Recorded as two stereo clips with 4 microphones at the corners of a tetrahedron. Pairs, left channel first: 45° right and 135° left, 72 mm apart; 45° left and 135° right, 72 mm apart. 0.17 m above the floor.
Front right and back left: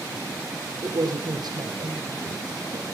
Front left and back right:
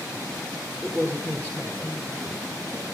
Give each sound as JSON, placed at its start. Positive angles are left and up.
{"t": 0.8, "sound": "a man speaking", "azimuth_deg": 160, "distance_m": 5.5}